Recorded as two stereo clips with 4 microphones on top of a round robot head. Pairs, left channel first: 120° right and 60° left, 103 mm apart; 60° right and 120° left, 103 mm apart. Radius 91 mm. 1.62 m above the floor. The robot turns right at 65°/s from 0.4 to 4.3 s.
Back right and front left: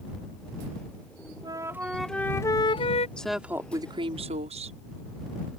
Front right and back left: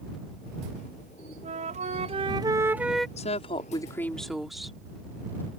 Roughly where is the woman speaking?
Ahead right.